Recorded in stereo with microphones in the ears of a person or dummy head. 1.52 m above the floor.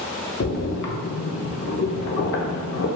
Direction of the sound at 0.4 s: 60° left (ahead or behind).